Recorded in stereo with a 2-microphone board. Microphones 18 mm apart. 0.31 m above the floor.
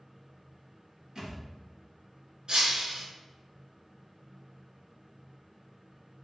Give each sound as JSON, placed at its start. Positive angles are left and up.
{"t": 1.1, "sound": "a thud", "side_deg": -40, "distance_m": 2.0}
{"t": 2.5, "sound": "breaking glass", "side_deg": -75, "distance_m": 1.3}